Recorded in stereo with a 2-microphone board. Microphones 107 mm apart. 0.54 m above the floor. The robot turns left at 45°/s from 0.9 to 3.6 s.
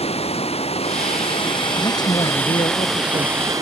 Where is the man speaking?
140° left; by 3.5 s 65° left.